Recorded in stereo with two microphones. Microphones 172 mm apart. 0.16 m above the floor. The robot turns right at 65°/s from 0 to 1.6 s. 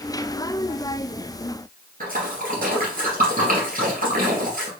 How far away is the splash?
About 2 m.